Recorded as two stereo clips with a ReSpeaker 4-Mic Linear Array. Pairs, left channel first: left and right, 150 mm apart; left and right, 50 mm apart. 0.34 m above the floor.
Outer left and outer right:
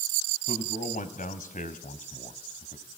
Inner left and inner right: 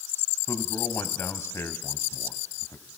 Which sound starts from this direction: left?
A man speaking, at 0.5 s.